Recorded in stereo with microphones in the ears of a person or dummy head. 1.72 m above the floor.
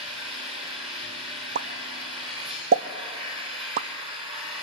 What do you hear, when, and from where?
0.0 s an engine running: 35° right (ahead or behind), 5.5 m
1.6 s a pop: 45° right (ahead or behind), 0.6 m